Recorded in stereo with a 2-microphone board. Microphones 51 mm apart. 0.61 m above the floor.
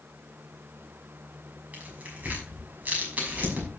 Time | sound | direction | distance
1.7 | tearing paper | 30° right (ahead or behind) | 6 m